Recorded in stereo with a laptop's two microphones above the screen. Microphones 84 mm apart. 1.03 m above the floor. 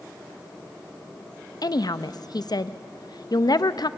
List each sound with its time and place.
1.6 s a woman speaking: 60° left (ahead or behind), 0.7 m